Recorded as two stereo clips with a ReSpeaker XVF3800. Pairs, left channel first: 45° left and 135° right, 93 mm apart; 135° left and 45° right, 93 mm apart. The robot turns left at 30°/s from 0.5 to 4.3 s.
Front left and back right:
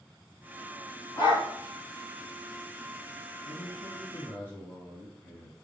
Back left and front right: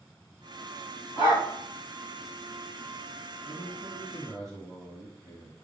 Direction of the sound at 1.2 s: 100° left.